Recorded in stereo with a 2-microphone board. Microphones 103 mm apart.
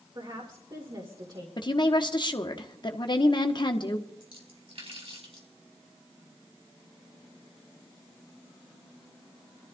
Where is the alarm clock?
No alarm clock in this recording.